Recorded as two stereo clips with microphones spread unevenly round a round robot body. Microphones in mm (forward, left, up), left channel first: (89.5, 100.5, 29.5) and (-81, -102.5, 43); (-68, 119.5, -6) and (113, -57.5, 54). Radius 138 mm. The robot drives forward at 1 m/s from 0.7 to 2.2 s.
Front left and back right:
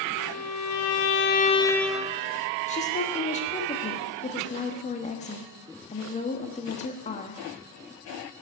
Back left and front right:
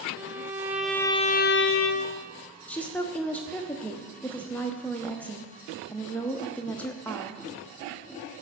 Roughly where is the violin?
Ahead left.